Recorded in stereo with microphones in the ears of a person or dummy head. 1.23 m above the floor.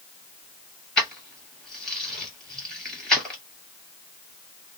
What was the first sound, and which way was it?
Keys jangling, 5° left (ahead or behind).